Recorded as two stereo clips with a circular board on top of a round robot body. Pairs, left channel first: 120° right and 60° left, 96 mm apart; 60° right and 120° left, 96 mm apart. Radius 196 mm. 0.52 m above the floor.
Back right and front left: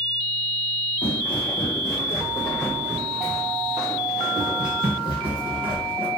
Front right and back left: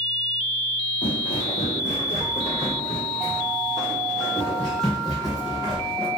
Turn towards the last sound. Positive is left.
turn(degrees=40)